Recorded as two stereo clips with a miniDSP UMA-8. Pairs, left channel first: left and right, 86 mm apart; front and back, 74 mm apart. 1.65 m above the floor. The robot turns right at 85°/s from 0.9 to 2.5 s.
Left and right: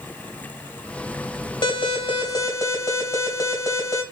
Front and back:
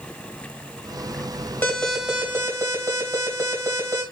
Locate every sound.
1.6 s an alarm: 70° left, 2.5 m; by 4.0 s 145° left, 2.5 m